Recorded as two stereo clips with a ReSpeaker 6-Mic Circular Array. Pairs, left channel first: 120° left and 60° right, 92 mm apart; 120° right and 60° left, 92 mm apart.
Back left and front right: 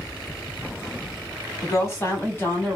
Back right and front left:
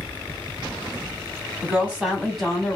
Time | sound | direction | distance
1.6 | a woman speaking | 120° left | 1.3 m